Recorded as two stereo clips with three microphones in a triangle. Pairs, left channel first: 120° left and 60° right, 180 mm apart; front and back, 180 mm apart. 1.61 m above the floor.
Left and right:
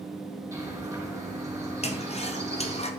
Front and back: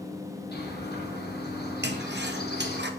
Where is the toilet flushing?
170° left, 0.7 m.